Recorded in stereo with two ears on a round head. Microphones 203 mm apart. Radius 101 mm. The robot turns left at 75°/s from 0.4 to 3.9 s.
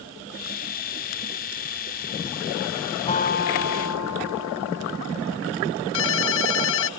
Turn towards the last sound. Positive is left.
turn(degrees=60)  # may be behind; listen again after turning